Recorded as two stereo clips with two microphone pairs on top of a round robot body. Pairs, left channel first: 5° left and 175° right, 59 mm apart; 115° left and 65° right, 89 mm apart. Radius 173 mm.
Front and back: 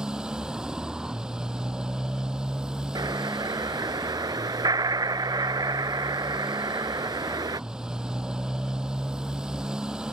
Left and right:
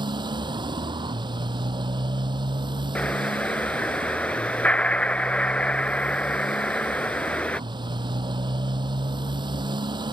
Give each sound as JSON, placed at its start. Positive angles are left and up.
{"t": 0.0, "sound": "a motorcycle", "azimuth_deg": -100}
{"t": 3.0, "sound": "an explosion", "azimuth_deg": -170}